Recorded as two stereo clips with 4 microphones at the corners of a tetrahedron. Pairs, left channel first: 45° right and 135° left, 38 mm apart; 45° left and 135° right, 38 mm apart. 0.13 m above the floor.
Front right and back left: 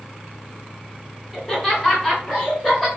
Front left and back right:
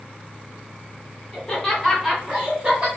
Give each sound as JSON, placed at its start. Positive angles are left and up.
{"t": 1.3, "sound": "laughter", "azimuth_deg": 20, "distance_m": 1.6}